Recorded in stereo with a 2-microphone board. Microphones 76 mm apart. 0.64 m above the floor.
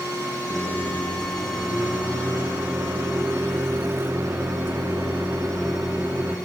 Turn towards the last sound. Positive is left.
turn(degrees=-30)  # may be behind; listen again after turning